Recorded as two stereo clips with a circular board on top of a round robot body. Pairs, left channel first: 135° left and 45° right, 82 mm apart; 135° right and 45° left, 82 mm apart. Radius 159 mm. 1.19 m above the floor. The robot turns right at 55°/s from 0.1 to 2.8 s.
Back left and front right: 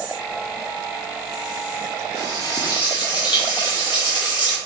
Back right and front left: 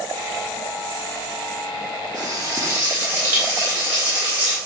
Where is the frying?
75° left, 0.5 m; by 4.6 s 110° left, 0.5 m.